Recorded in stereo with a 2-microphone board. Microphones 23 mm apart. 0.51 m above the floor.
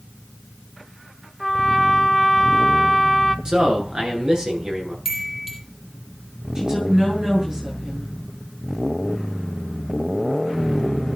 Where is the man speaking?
30° right (ahead or behind), 9 m.